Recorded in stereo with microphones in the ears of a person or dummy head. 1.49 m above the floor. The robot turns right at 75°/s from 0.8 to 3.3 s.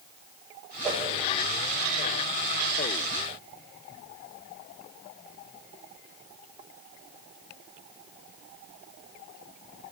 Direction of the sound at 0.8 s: 10° right (ahead or behind).